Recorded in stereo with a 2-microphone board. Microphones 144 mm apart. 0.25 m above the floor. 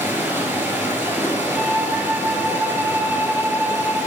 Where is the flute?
5° right (ahead or behind), 1.3 m.